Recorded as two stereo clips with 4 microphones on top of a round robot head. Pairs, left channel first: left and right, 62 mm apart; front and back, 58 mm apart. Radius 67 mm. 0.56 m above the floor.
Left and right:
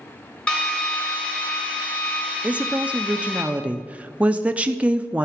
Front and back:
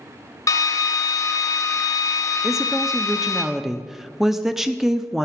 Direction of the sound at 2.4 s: 105° right.